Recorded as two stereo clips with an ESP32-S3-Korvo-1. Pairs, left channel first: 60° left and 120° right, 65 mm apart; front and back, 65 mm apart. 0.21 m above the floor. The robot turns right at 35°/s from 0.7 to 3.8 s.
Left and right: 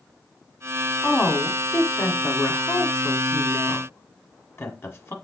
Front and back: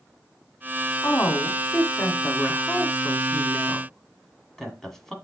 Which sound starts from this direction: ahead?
A woman speaking, at 1.0 s.